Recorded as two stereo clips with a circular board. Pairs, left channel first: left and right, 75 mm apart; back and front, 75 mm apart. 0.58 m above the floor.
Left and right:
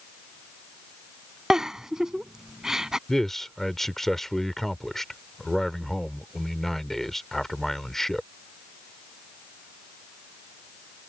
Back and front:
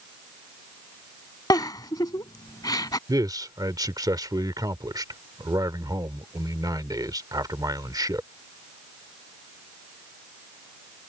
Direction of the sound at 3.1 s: 5° left.